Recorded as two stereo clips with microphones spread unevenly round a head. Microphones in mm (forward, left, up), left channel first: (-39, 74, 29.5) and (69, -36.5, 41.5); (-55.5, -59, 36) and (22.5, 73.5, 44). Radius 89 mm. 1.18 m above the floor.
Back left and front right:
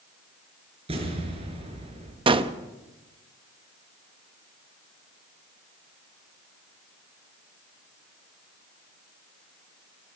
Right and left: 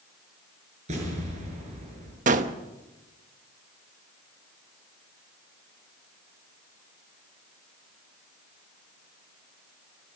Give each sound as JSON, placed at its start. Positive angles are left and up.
{"t": 0.9, "sound": "an explosion", "azimuth_deg": 10, "distance_m": 6.0}
{"t": 2.3, "sound": "a gunshot", "azimuth_deg": 10, "distance_m": 1.1}